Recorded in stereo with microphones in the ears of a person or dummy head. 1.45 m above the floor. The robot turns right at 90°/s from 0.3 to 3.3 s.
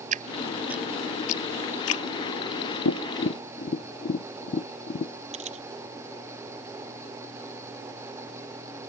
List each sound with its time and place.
0.1 s dripping: 45° right (ahead or behind); by 2.0 s 70° left (ahead or behind)
2.9 s tapping: 85° left; by 5.1 s 45° left (ahead or behind)
5.3 s a camera shutter: 40° right (ahead or behind)